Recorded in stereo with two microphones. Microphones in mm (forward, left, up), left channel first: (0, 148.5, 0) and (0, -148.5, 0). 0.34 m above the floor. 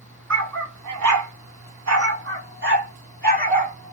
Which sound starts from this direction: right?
A dog barking, at 0.3 s.